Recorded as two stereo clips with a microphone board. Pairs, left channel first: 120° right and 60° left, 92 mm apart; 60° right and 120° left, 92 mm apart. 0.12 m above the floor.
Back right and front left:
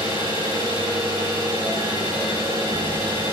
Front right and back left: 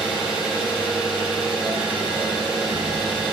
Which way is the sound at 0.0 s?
40° left.